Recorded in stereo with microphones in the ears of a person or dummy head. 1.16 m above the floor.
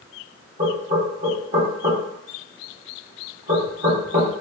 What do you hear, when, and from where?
0.6 s knocking: 45° right (ahead or behind), 1.1 m